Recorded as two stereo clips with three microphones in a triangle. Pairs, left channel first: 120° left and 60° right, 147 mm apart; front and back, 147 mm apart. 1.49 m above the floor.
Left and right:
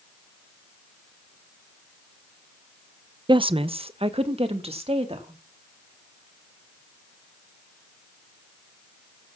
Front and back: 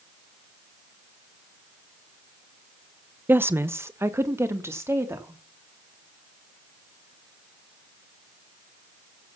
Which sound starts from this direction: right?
A woman speaking, at 3.3 s.